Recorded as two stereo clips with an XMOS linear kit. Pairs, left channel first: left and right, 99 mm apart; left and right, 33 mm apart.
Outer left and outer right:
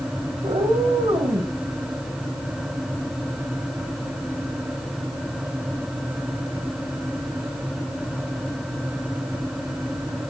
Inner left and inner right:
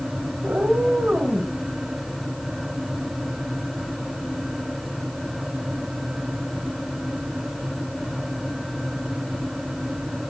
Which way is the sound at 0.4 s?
60° right (ahead or behind).